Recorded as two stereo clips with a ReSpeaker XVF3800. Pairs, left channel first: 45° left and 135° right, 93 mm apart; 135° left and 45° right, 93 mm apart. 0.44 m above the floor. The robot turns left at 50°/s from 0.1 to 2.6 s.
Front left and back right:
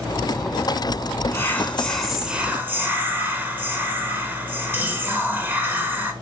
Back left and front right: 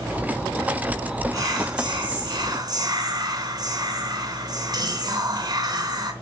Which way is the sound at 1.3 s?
10° right.